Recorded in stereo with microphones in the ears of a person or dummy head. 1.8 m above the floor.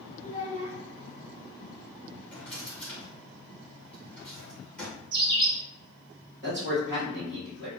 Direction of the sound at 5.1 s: 30° right (ahead or behind).